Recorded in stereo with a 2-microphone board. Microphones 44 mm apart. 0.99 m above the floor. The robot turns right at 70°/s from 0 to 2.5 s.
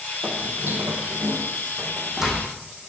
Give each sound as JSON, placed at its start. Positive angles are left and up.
{"t": 0.2, "sound": "footsteps", "side_deg": -30, "distance_m": 2.5}